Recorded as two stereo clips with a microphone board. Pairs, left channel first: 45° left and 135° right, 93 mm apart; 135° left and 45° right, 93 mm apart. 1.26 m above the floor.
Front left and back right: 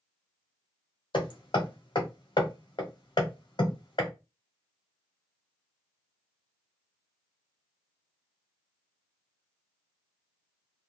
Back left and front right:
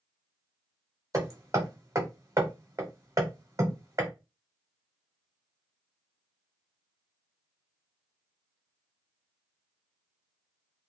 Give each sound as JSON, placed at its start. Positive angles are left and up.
{"t": 1.1, "sound": "hammering", "azimuth_deg": 10, "distance_m": 0.9}